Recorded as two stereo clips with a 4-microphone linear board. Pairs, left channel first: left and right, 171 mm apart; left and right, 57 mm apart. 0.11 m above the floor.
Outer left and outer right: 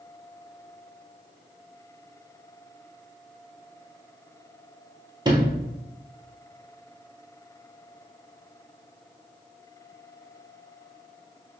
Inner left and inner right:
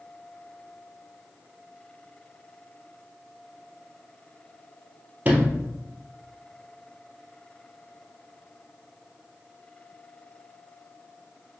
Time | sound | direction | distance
5.2 | a sliding door | 25° right (ahead or behind) | 0.9 m